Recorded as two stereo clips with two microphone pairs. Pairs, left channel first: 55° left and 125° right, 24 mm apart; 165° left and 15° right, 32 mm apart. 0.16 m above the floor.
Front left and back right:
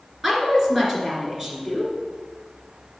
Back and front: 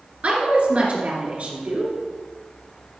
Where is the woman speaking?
50° right, 2.5 m.